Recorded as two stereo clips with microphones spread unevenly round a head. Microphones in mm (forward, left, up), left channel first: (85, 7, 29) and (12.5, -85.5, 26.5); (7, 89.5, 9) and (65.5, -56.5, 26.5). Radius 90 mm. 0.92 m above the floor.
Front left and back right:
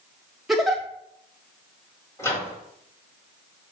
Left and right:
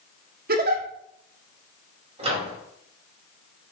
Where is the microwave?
15° right, 4.5 m.